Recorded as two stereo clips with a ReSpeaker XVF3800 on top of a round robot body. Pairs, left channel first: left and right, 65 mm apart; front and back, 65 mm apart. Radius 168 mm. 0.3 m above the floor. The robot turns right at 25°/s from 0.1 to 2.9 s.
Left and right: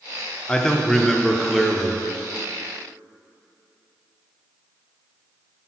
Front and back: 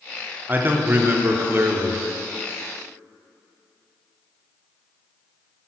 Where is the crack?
I don't hear a crack.